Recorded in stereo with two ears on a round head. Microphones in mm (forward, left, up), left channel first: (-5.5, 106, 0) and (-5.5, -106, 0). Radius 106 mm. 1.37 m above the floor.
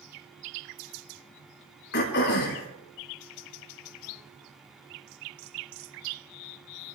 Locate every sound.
1.9 s throat clearing: 55° left (ahead or behind), 4.5 m